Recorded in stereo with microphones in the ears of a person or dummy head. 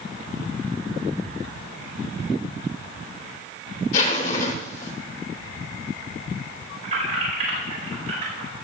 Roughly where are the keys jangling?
Right.